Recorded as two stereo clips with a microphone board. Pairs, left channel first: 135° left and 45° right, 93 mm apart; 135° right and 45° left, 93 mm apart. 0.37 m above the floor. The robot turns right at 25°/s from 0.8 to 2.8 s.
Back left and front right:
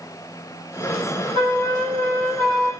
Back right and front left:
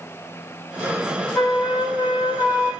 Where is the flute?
40° right, 7.5 m; by 2.7 s 5° right, 7.5 m.